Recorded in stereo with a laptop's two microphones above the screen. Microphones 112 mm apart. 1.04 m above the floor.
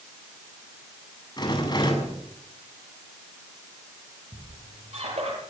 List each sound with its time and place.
1.4 s a rattle: 40° left (ahead or behind), 8 m
4.3 s a squeak: 65° right (ahead or behind), 7 m